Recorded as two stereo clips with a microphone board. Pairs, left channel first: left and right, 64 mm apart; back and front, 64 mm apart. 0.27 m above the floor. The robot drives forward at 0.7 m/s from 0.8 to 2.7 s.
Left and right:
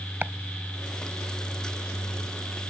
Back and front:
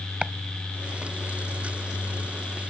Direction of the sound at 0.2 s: 60° right.